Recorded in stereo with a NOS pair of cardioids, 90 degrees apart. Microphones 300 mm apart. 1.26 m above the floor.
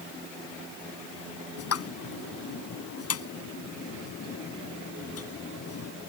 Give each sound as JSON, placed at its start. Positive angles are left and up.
{"t": 1.6, "sound": "a pop", "azimuth_deg": 55}